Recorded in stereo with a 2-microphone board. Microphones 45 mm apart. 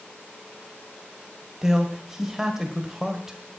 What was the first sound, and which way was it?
A man speaking, 10° right (ahead or behind).